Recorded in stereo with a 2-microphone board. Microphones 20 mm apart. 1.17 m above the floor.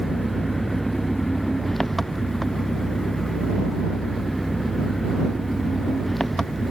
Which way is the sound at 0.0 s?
10° left (ahead or behind).